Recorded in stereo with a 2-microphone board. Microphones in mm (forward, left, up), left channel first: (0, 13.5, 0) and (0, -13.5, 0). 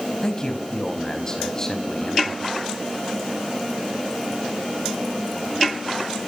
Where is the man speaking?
25° left (ahead or behind), 5 m.